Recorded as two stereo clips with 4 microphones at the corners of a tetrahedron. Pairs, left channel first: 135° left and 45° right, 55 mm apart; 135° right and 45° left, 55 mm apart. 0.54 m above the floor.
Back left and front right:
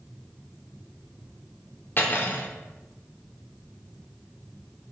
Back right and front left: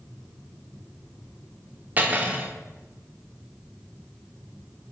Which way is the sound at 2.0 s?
95° left.